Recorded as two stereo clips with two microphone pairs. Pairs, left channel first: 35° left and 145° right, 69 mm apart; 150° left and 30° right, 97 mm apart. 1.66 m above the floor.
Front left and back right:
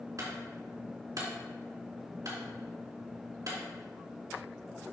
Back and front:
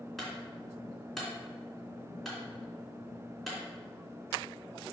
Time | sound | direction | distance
0.2 | a clunk | 125° right | 3 m